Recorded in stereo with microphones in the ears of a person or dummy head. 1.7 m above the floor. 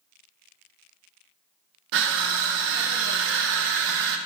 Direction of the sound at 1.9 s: 75° right (ahead or behind).